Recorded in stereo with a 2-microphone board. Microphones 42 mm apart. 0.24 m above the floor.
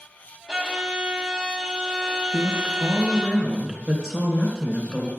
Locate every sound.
0.5 s a violin: 15° right (ahead or behind), 1.3 m
2.3 s a woman speaking: 10° right (ahead or behind), 2.5 m